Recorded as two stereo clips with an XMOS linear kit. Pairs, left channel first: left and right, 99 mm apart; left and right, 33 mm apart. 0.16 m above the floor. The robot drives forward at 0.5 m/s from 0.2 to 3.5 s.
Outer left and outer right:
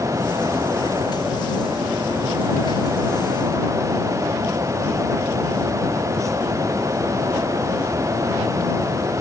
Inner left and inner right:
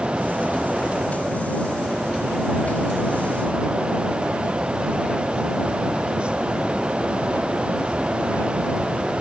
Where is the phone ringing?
No phone ringing in this recording.